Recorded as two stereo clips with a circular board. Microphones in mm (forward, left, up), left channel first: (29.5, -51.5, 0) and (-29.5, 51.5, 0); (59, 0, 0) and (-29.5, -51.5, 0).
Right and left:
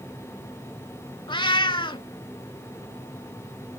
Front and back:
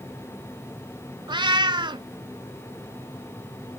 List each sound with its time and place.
1.3 s a cat meowing: 105° right, 0.6 m